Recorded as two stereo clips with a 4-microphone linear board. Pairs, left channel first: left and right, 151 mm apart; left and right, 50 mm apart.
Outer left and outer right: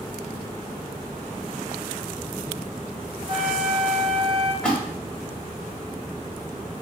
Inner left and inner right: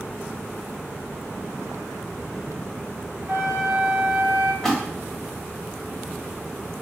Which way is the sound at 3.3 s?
45° right (ahead or behind).